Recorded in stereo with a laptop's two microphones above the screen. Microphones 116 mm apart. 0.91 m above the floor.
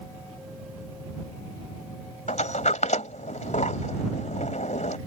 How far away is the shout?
I don't hear a shout.